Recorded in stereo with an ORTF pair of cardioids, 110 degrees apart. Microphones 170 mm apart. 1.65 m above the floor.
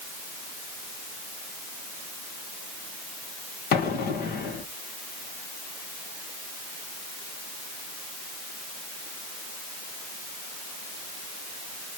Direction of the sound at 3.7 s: 65° left.